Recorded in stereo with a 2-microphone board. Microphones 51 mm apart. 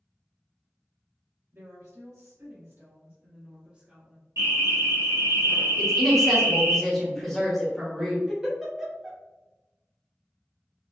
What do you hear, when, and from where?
1.5 s a woman speaking: 75° right (ahead or behind), 1.5 m; by 4.3 s 5° right (ahead or behind), 0.9 m
4.4 s an alarm: 70° right (ahead or behind), 1.4 m
5.8 s a woman speaking: 5° left (ahead or behind), 1.0 m
8.3 s a giggle: 10° right (ahead or behind), 0.7 m